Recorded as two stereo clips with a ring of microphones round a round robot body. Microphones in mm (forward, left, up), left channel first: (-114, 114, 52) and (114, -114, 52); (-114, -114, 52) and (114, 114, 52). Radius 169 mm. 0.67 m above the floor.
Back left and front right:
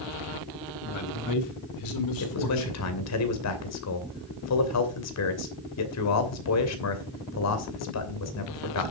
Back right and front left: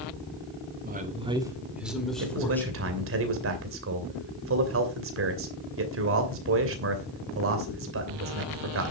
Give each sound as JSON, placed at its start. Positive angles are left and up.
{"t": 0.8, "sound": "a man speaking", "azimuth_deg": 100, "distance_m": 1.6}
{"t": 2.2, "sound": "a man speaking", "azimuth_deg": 95, "distance_m": 2.5}